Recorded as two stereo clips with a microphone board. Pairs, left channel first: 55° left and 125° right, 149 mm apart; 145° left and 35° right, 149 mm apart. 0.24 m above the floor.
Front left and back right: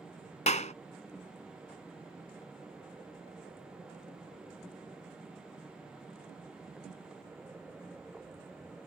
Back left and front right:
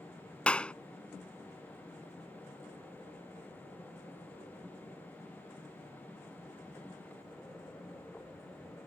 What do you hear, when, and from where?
0.5 s a clap: 65° left